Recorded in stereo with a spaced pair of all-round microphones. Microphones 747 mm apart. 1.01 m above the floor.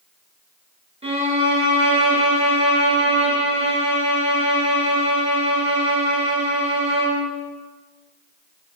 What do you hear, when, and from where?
1.0 s a violin: 10° right (ahead or behind), 5 m